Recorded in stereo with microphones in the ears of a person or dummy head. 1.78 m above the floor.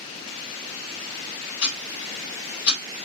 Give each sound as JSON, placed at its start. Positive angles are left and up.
{"t": 1.6, "sound": "ticking", "side_deg": 65, "distance_m": 3.0}